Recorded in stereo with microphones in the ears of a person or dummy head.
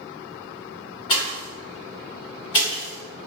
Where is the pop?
20° left (ahead or behind), 0.8 m.